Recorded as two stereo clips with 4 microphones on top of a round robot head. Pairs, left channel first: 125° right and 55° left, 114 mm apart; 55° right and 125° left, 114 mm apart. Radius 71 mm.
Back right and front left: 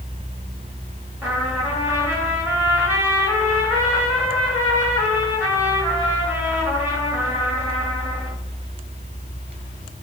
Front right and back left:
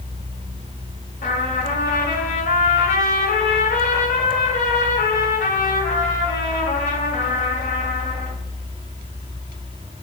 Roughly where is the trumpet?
Ahead right.